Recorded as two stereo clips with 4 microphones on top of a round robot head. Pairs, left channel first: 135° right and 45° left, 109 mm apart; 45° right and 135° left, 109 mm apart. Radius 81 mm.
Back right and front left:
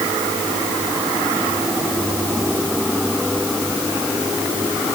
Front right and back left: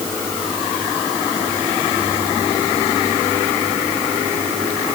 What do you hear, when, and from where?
Only background noise.